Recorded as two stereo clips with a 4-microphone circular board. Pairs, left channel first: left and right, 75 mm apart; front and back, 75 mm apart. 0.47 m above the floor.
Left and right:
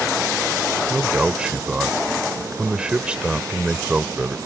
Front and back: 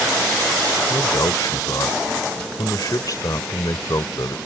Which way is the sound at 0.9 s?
15° right.